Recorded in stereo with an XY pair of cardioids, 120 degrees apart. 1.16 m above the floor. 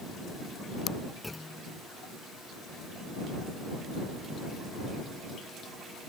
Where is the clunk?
15° left.